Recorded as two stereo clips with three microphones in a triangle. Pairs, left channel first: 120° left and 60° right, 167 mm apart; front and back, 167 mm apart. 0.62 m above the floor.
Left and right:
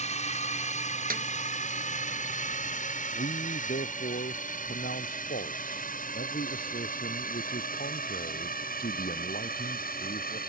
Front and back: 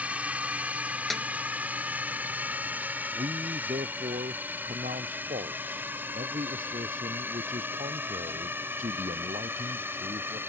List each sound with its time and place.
0.0 s a drone: 100° left; by 10.5 s 105° left
1.1 s a snare drum: 90° right
3.1 s a man speaking: 140° left